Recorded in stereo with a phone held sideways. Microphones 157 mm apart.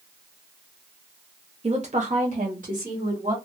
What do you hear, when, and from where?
1.6 s a woman speaking: 40° right (ahead or behind), 0.6 m; by 3.4 s 55° right (ahead or behind), 1.8 m